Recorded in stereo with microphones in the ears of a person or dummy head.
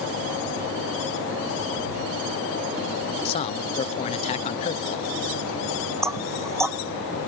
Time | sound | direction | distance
3.2 | a man speaking | 35° left (ahead or behind) | ?
6.0 | knocking | 10° right (ahead or behind) | ?